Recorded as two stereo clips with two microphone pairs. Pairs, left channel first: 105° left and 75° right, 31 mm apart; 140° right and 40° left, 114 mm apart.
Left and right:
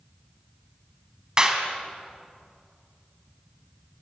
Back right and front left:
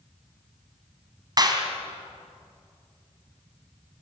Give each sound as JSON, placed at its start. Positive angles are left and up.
{"t": 1.4, "sound": "a clap", "azimuth_deg": -10, "distance_m": 3.0}